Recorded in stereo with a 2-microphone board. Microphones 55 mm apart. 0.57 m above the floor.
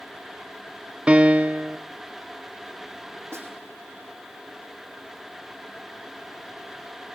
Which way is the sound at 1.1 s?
20° right (ahead or behind).